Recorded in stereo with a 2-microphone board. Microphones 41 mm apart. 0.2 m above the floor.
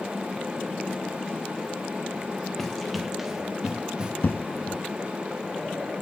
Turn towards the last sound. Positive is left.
turn(degrees=70)  # may be behind; listen again after turning